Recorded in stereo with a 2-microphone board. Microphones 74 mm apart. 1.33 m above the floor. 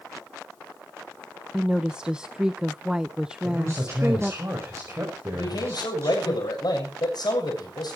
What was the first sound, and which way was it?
A woman speaking, 10° right (ahead or behind).